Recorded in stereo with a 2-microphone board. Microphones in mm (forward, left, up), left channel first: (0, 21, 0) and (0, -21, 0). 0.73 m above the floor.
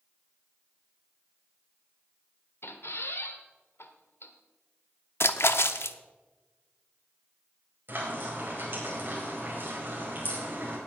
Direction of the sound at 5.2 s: 80° left.